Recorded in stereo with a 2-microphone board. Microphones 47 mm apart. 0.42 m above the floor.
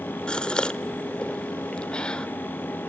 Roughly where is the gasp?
Centre.